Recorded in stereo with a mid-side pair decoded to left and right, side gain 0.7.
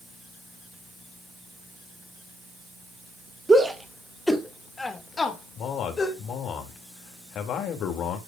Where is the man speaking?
45° left, 2.5 m.